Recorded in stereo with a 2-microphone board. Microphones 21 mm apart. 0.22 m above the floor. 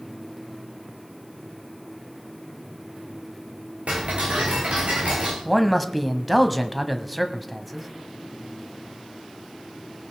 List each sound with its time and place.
3.9 s ticking: 90° right, 3.5 m
5.5 s a man speaking: 5° right (ahead or behind), 1.1 m